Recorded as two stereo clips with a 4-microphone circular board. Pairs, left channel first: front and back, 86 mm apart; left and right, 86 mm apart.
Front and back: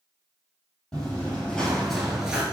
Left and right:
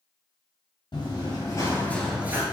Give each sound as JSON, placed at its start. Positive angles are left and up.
{"t": 0.9, "sound": "running footsteps", "azimuth_deg": 75, "distance_m": 1.6}